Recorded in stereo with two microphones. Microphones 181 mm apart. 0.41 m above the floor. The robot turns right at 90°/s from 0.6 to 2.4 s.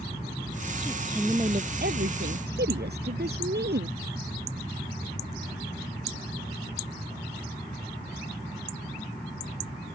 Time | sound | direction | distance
0.8 | a woman speaking | 155° left | ?